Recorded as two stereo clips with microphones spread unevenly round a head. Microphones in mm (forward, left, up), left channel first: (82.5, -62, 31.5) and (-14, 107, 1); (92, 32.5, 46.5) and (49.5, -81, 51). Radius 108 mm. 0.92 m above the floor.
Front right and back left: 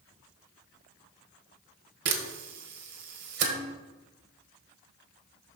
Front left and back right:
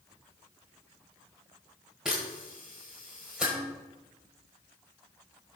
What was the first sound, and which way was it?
A camera shutter, 165° left.